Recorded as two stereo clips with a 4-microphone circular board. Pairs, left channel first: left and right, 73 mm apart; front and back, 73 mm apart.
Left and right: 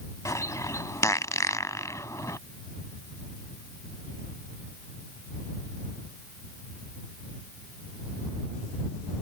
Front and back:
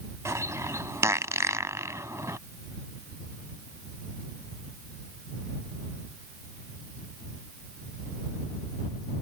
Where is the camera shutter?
I don't hear a camera shutter.